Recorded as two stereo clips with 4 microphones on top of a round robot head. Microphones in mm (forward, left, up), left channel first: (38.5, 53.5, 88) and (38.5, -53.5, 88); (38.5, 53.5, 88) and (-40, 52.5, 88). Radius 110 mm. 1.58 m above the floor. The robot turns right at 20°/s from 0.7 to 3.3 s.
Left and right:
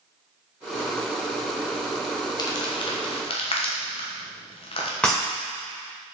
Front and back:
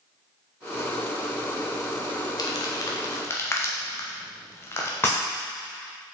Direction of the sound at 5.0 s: 20° left.